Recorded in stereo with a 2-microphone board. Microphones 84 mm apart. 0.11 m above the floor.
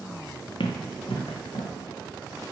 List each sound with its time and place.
0.6 s running footsteps: 85° left, 0.6 m; by 1.7 s 75° left (ahead or behind), 1.6 m